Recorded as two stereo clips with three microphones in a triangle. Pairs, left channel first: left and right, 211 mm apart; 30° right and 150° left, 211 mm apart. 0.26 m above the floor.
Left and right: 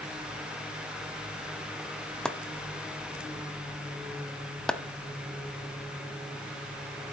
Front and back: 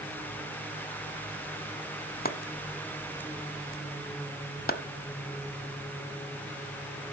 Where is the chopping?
5° left, 0.7 m.